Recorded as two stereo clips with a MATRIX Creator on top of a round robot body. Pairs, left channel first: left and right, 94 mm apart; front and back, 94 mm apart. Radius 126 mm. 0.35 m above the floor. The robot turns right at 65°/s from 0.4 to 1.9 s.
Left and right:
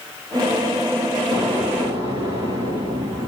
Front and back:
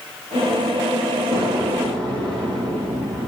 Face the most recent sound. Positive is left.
turn(degrees=-140)